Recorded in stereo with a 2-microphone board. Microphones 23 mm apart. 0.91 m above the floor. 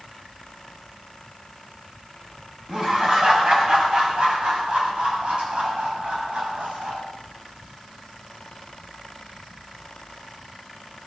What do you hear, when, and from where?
2.7 s laughter: 30° right (ahead or behind), 5 m; by 7.0 s 60° right (ahead or behind), 5.5 m